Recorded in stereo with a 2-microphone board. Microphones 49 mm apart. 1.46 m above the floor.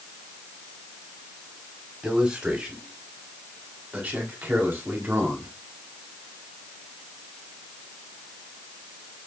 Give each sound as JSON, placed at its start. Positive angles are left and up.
{"t": 2.0, "sound": "a man speaking", "side_deg": -20, "distance_m": 5.0}